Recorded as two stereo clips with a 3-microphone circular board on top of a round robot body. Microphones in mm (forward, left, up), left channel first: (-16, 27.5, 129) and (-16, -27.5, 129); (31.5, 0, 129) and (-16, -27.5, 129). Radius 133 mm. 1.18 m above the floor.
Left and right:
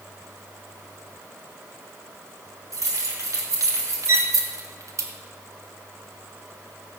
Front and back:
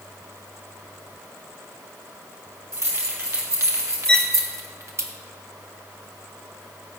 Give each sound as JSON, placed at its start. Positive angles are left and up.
{"t": 2.7, "sound": "keys jangling", "azimuth_deg": -115, "distance_m": 3.5}
{"t": 4.1, "sound": "a violin", "azimuth_deg": -45, "distance_m": 0.5}